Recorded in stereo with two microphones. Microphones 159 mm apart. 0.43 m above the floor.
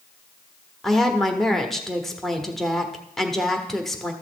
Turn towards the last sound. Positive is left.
turn(degrees=0)  # may be behind; listen again after turning